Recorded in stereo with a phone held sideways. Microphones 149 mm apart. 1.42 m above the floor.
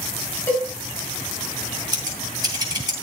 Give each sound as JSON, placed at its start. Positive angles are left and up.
{"t": 0.5, "sound": "a cowbell", "side_deg": 20, "distance_m": 6.0}
{"t": 1.9, "sound": "scissors", "side_deg": -25, "distance_m": 3.0}